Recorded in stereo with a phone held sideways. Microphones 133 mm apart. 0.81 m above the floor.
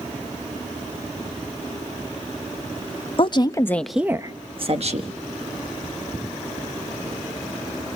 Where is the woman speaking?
40° left (ahead or behind), 1.1 m; by 5.1 s 60° right (ahead or behind), 1.5 m.